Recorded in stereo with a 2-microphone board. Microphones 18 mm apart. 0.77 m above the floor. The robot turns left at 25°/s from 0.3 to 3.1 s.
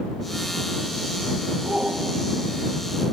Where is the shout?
75° right (ahead or behind).